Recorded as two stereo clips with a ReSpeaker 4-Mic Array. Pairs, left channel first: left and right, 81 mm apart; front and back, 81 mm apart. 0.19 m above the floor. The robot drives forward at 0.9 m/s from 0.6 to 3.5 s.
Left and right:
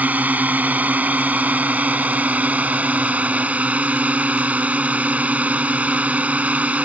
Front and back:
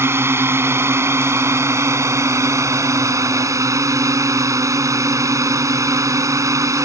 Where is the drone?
145° right; by 6.9 s 155° right.